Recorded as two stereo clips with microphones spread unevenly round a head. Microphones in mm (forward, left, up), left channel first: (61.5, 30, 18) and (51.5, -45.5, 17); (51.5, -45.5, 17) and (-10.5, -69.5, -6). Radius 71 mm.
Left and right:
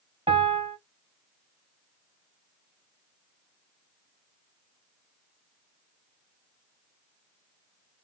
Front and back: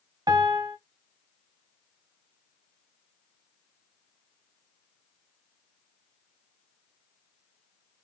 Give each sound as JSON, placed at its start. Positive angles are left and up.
{"t": 0.3, "sound": "a piano", "azimuth_deg": -130, "distance_m": 0.8}